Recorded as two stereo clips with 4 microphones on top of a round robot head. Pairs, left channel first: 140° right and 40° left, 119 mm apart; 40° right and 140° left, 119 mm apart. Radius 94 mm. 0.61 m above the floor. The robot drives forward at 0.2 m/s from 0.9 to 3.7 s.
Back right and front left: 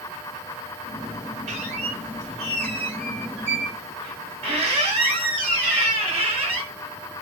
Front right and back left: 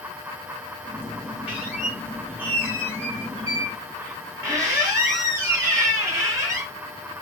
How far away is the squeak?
About 1.6 m.